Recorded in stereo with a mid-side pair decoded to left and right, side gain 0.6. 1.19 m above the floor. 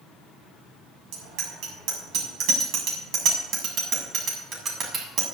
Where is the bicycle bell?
70° right, 7 m; by 5.2 s 40° right, 7 m.